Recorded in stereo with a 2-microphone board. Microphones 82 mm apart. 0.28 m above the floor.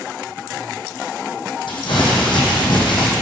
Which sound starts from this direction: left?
Crumpling, at 1.7 s.